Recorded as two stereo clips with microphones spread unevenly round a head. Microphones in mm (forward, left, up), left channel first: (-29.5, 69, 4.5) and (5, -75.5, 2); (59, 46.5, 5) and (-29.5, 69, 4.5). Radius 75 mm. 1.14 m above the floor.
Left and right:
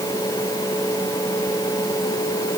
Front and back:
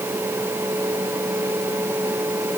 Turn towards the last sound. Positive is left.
No sound to turn to.